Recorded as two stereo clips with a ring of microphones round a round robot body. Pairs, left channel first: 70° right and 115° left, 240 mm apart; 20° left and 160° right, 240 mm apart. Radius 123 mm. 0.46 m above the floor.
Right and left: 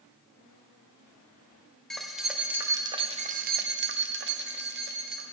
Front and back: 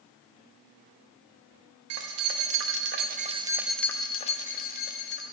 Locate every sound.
1.9 s keys jangling: 155° right, 1.4 m; by 5.2 s 65° left, 1.5 m